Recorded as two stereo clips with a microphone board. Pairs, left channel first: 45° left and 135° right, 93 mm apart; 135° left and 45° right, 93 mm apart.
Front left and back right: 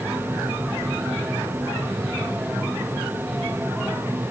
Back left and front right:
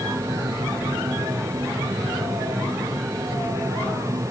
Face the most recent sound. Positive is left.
No sound to turn to.